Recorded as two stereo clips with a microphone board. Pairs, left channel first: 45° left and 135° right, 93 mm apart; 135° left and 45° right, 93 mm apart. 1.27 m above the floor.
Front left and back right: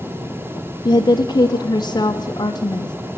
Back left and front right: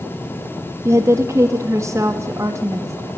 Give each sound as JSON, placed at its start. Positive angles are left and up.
{"t": 0.8, "sound": "a woman speaking", "azimuth_deg": 10, "distance_m": 0.6}